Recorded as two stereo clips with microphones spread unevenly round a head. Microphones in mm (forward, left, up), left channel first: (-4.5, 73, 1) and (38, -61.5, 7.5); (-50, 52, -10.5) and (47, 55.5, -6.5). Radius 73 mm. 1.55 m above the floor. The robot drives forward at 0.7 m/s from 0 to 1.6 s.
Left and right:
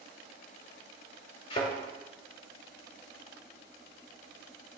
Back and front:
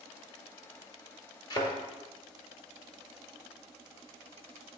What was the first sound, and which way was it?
A thud, 150° left.